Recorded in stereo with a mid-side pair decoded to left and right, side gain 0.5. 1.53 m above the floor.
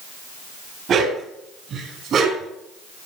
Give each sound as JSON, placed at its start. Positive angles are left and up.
{"t": 0.9, "sound": "a dog barking", "azimuth_deg": -55, "distance_m": 5.0}